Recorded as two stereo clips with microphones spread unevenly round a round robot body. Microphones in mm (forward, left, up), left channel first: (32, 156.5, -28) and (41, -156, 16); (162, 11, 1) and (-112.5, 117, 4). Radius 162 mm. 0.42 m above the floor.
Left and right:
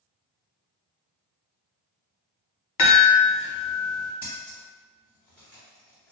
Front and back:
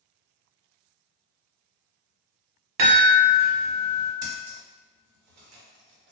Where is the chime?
125° left, 0.9 m.